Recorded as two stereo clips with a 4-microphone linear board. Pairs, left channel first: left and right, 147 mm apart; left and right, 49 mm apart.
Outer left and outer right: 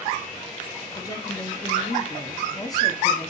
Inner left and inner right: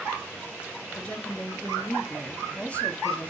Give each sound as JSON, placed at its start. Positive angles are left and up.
{"t": 0.9, "sound": "a woman speaking", "side_deg": 25, "distance_m": 1.0}